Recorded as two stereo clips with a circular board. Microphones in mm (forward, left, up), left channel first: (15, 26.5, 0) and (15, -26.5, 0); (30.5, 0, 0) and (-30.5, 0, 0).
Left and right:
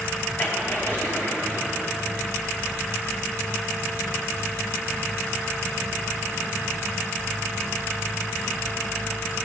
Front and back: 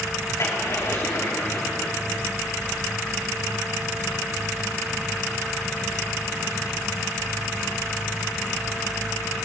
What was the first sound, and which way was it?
A splash, 40° left.